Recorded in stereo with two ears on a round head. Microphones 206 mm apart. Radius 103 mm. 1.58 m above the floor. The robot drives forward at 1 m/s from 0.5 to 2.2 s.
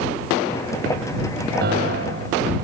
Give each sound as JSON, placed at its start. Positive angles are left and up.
{"t": 1.6, "sound": "a piano", "side_deg": -50}